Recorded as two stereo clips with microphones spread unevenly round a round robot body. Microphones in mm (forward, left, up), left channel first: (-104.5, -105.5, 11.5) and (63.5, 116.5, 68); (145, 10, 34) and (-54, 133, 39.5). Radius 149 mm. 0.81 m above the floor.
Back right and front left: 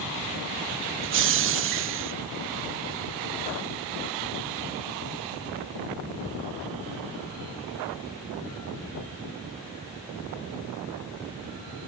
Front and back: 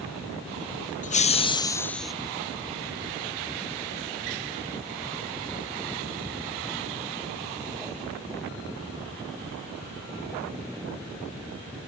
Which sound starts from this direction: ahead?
Laughter, at 1.0 s.